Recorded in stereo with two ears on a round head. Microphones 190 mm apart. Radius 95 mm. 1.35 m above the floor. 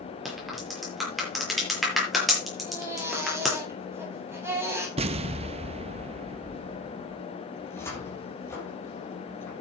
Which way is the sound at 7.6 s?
15° left (ahead or behind).